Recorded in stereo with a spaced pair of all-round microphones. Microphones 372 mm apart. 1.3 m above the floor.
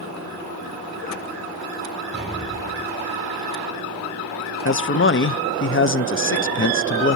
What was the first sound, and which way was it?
An explosion, 15° left (ahead or behind).